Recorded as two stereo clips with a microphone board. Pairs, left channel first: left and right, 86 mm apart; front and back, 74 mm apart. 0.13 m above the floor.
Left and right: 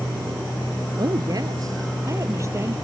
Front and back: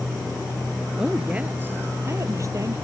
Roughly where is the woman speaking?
Right.